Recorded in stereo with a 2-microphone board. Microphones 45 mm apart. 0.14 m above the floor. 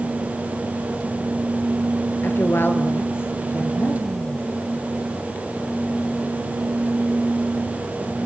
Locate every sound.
2.2 s a woman speaking: 60° left (ahead or behind), 2.5 m